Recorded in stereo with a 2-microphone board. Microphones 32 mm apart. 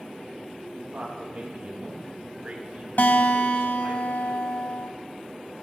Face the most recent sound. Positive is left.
turn(degrees=70)  # may be behind; listen again after turning